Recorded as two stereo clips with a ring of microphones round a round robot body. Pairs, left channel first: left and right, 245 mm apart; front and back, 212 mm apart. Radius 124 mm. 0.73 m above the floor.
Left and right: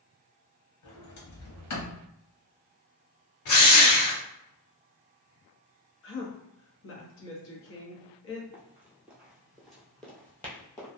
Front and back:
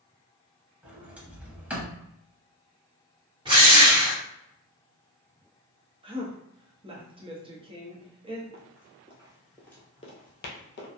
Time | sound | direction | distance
0.8 | a sliding door | 95° left | 0.9 m
3.5 | a drill | 110° left | 1.2 m
6.0 | a woman speaking | 115° left | 1.0 m
8.5 | running footsteps | 170° right | 0.9 m